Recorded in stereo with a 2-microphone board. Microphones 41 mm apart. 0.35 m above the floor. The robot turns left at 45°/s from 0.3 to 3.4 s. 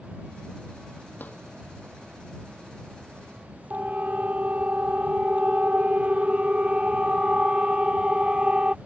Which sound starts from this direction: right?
A siren, at 3.7 s.